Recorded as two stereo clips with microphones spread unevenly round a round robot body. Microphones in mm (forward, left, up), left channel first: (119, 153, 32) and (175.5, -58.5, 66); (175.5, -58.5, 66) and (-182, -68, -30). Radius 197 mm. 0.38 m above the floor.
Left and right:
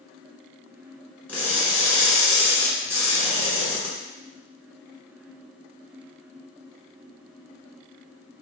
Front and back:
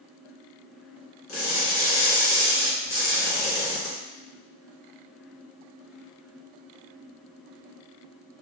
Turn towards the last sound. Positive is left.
turn(degrees=30)